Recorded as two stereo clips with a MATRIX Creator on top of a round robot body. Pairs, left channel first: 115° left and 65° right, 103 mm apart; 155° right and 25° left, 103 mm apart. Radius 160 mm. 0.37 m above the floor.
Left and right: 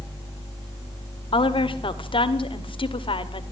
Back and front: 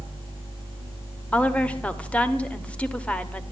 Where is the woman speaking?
125° left, 2.0 m.